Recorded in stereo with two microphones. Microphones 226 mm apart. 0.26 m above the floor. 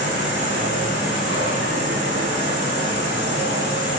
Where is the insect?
35° right (ahead or behind), 1.5 m.